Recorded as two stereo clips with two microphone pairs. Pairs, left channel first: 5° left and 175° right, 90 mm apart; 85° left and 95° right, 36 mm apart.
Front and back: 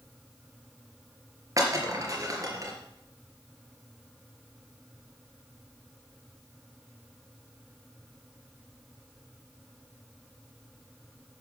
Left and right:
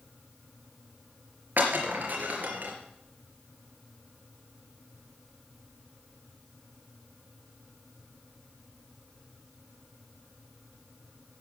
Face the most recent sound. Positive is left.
turn(degrees=-125)